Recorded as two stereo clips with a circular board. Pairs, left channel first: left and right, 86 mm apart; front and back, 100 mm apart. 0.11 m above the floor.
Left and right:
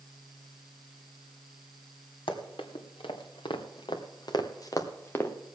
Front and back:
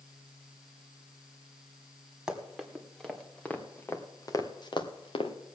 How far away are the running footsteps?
About 3 m.